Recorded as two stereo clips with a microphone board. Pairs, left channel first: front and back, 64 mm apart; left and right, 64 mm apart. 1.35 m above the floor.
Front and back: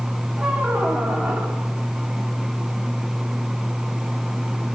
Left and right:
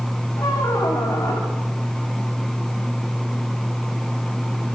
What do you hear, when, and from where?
0.4 s a squeak: 120° left, 5 m